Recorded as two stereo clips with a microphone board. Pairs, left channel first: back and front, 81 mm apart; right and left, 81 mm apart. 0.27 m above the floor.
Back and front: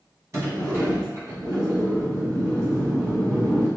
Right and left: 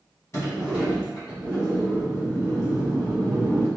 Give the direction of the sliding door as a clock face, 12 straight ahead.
2 o'clock.